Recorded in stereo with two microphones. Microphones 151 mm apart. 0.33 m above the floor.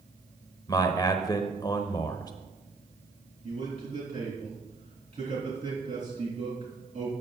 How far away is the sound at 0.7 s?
About 0.9 m.